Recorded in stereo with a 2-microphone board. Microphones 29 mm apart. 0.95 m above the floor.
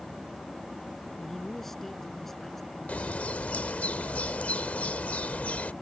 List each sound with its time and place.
1.2 s a man speaking: 10° left (ahead or behind)
2.9 s a bird: 60° left (ahead or behind)